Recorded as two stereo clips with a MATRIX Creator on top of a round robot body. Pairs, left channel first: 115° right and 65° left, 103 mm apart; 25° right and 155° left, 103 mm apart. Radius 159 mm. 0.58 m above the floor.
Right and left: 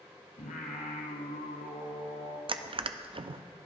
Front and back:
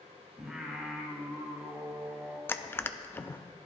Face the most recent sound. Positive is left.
turn(degrees=45)